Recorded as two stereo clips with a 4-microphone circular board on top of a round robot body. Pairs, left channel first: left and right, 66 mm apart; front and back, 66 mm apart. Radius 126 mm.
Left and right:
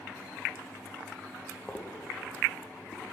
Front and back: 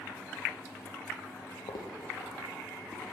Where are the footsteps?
15° left, 0.8 m; by 3.0 s 65° left, 1.8 m.